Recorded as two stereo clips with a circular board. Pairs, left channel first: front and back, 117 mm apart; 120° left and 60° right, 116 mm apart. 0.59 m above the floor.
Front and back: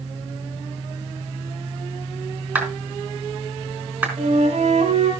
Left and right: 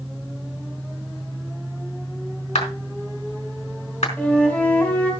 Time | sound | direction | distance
2.5 | a clap | 105° left | 4 m
4.2 | a flute | 160° right | 3.5 m